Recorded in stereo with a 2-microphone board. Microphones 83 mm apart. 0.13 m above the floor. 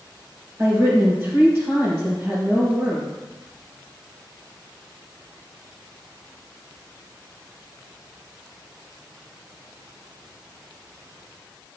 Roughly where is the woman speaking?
Right.